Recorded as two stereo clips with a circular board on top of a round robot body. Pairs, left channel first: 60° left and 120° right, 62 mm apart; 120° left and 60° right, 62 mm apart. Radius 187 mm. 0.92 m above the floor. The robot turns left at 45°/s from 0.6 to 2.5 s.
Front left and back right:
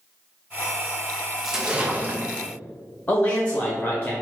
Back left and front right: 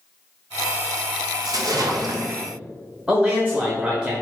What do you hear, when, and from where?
1.4 s a splash: 35° right, 0.7 m; by 2.4 s 75° right, 0.7 m
3.1 s a man speaking: 5° left, 1.1 m